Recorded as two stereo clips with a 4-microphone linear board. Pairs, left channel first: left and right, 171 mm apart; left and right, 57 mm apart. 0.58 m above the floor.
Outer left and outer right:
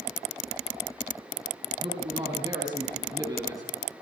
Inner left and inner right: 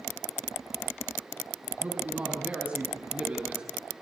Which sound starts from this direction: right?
A man speaking, at 1.8 s.